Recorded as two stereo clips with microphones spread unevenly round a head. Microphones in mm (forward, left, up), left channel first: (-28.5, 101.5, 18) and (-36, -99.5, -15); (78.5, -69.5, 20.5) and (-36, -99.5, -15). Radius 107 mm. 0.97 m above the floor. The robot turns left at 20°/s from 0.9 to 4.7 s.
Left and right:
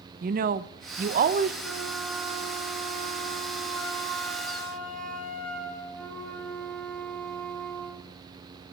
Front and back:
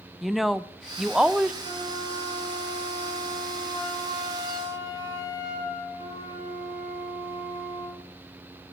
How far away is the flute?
About 3.5 m.